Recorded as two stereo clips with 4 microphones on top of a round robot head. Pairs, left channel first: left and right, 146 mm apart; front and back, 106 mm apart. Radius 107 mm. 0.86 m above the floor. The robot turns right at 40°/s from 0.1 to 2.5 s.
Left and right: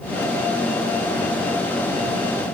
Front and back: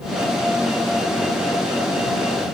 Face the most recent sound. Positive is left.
No sound to turn to.